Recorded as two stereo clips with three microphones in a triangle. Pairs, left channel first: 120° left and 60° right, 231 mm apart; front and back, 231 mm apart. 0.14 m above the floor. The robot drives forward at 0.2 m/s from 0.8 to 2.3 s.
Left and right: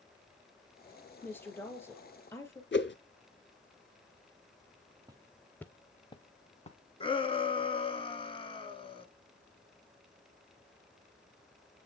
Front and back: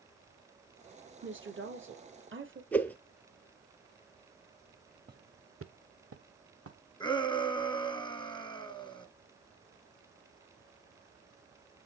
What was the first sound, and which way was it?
A woman speaking, 160° right.